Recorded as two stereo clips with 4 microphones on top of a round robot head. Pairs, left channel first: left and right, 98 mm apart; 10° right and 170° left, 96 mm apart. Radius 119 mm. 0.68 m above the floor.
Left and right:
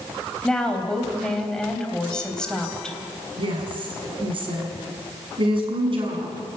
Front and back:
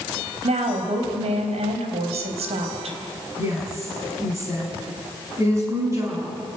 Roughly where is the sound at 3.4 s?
Behind right.